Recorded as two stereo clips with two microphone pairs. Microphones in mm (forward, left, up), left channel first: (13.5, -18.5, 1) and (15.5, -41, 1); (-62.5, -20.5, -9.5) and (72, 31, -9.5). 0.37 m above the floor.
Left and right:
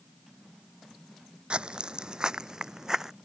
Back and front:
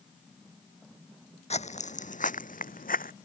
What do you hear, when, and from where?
1.5 s footsteps: 120° right; by 3.1 s 150° right